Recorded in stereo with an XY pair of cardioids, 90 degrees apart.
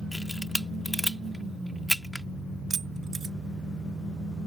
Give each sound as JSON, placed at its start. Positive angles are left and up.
{"t": 0.1, "sound": "a camera shutter", "azimuth_deg": 10}
{"t": 2.7, "sound": "keys jangling", "azimuth_deg": -45}